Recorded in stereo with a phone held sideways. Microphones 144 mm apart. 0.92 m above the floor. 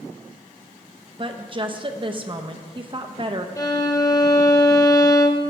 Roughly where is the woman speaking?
Right.